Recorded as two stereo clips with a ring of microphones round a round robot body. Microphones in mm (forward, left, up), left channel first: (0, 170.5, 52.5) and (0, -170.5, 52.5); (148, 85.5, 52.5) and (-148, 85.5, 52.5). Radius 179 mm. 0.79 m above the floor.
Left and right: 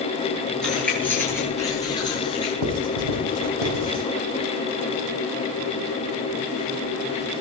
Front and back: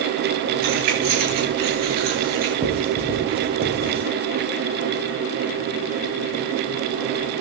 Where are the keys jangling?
Straight behind, 9 m; by 2.5 s 165° left, 9 m.